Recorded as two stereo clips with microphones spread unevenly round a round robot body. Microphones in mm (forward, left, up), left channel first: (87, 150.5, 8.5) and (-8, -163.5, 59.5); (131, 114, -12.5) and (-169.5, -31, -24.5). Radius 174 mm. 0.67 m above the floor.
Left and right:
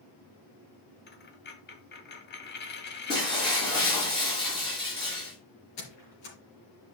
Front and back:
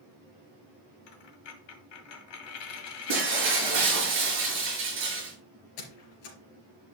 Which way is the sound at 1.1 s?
10° left.